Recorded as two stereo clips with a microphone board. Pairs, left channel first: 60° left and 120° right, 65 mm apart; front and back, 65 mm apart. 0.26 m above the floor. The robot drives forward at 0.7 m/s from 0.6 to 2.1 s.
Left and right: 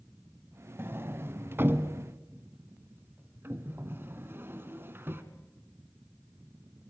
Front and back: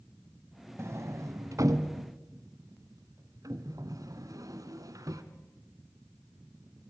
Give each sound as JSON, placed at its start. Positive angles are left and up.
{"t": 0.8, "sound": "a sliding door", "azimuth_deg": -155, "distance_m": 1.1}